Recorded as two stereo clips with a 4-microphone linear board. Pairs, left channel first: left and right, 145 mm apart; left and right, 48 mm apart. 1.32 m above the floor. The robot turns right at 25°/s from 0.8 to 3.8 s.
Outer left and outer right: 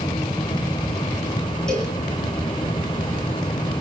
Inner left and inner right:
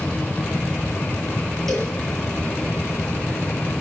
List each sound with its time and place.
1.7 s a cowbell: 5° left (ahead or behind), 8 m; by 2.0 s centre (ahead or behind), 8 m